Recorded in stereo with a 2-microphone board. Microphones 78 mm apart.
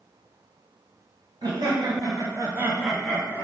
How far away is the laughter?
About 1.4 m.